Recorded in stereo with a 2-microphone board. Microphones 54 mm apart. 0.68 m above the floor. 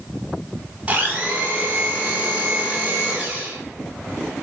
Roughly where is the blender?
Right.